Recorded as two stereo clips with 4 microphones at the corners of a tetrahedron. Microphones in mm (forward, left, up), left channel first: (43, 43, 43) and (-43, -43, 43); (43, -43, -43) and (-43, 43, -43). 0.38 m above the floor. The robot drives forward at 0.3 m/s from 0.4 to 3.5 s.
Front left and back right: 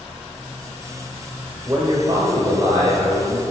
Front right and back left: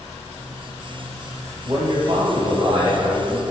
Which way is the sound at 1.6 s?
170° left.